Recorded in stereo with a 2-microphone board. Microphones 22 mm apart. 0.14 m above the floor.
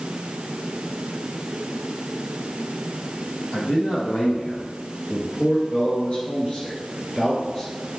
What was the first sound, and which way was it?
A man speaking, 60° left (ahead or behind).